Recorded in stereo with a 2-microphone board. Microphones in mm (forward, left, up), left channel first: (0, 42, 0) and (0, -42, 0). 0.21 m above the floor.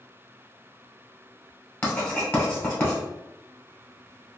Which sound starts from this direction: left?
Writing, at 1.8 s.